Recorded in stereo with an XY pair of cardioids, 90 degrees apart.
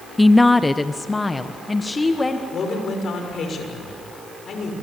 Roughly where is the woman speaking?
Ahead.